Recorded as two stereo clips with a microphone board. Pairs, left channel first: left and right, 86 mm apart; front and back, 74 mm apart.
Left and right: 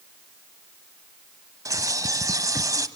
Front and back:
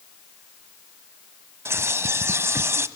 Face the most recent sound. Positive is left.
turn(degrees=-130)